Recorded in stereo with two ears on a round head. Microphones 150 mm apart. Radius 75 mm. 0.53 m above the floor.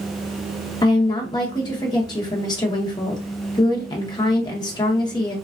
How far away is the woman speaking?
About 0.8 m.